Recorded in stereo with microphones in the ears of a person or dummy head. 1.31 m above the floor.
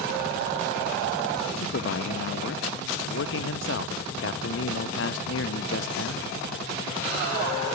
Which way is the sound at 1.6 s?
65° left (ahead or behind).